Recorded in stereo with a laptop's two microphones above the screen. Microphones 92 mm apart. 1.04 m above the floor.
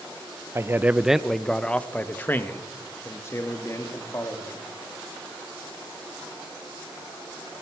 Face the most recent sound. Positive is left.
turn(degrees=35)  # may be behind; listen again after turning